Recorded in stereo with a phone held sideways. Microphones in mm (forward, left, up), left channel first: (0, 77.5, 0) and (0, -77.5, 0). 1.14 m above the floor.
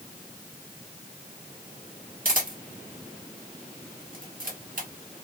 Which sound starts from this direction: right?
A camera shutter, at 2.2 s.